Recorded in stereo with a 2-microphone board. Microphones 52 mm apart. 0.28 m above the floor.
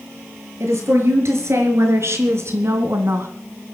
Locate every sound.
0.6 s a woman speaking: 60° right (ahead or behind), 5 m; by 3.3 s 50° right (ahead or behind), 2 m